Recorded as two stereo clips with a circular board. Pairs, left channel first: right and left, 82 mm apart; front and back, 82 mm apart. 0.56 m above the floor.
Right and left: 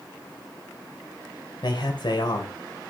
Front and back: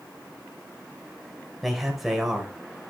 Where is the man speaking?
90° right, 2.5 m.